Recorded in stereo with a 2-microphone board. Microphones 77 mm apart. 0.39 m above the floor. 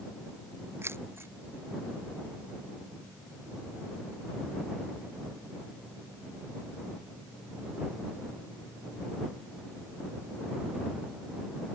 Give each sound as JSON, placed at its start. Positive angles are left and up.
{"t": 0.8, "sound": "keys jangling", "side_deg": -35}